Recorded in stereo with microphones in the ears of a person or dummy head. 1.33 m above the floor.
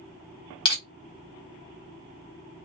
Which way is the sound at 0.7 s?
30° left (ahead or behind).